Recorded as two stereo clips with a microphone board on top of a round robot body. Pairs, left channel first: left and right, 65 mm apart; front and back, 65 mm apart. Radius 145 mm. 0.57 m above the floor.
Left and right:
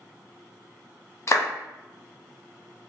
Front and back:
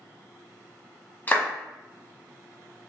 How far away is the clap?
About 0.9 m.